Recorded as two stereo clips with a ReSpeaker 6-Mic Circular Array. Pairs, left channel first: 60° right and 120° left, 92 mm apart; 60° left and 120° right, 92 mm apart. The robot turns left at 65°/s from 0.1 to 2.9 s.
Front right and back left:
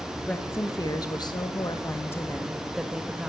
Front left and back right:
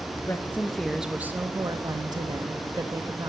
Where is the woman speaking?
10° left, 1.0 m; by 3.3 s 160° right, 1.0 m.